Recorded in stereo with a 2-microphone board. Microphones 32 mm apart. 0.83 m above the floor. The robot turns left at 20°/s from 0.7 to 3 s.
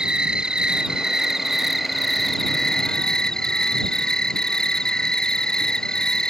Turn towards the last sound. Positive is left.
turn(degrees=160)